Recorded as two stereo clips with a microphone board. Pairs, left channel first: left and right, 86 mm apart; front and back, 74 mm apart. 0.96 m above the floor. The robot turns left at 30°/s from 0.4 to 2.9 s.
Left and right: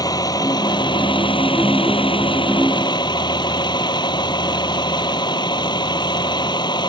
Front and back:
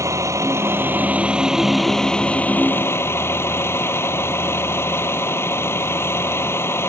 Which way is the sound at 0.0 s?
130° left.